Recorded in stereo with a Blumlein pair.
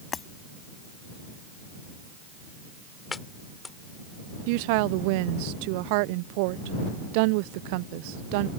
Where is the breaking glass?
20° left.